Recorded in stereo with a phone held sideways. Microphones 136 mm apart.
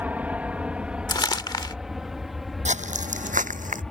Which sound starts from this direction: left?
Crumpling, at 1.1 s.